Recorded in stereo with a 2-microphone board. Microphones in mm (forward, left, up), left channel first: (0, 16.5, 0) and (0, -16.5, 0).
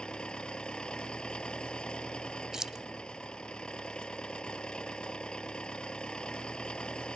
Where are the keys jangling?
20° right (ahead or behind).